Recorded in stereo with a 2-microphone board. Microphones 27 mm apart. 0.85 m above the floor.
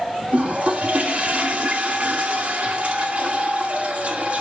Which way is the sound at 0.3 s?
55° right (ahead or behind).